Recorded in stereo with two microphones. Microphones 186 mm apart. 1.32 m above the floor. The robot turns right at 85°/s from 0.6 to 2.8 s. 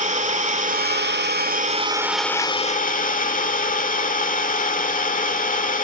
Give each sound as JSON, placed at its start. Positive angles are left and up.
{"t": 0.0, "sound": "an engine running", "azimuth_deg": -135, "distance_m": 1.7}